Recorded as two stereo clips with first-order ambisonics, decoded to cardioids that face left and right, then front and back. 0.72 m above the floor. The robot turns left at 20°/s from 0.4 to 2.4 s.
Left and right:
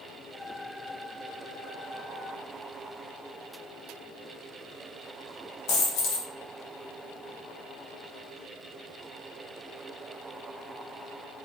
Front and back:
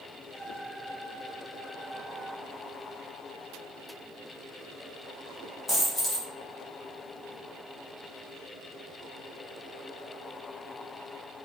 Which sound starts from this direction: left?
A dropped coin, at 5.7 s.